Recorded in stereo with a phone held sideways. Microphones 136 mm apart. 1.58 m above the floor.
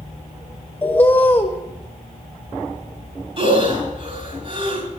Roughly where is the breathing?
Right.